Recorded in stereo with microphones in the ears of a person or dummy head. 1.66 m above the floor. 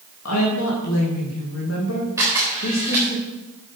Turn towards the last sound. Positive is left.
turn(degrees=-10)  # may be behind; listen again after turning